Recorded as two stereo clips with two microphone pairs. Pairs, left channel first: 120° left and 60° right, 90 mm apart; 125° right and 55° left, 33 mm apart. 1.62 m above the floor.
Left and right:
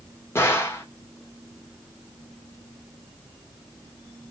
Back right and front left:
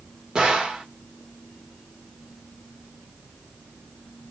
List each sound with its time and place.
0.3 s a gunshot: 90° left, 1.2 m